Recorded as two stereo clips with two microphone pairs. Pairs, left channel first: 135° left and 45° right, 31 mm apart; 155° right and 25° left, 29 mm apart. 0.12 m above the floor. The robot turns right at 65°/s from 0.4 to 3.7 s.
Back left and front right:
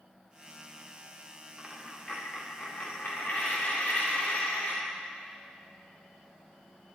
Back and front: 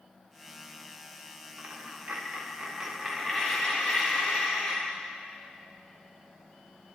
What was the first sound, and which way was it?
A dropped coin, 25° left.